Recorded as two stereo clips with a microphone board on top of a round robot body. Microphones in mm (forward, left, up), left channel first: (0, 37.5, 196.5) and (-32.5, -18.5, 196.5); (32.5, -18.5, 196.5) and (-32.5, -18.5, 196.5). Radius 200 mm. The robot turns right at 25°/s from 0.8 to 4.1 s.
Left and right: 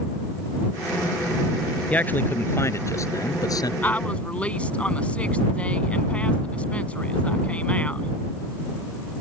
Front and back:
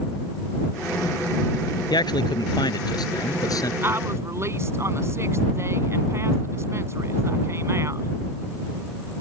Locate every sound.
1.9 s a man speaking: 10° right; by 3.7 s 35° left
3.8 s a woman speaking: 125° left; by 8.1 s 130° left